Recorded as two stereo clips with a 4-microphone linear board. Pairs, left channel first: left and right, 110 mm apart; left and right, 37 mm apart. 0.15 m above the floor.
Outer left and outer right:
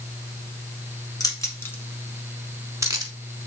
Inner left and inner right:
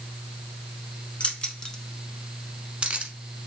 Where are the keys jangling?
35° left (ahead or behind), 1.1 m; by 3.1 s 40° right (ahead or behind), 1.0 m.